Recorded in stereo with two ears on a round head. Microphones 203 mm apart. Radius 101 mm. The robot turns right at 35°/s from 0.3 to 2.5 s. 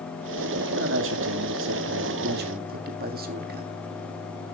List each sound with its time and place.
0.6 s a man speaking: 120° right, 2 m; by 3.7 s 50° right, 2 m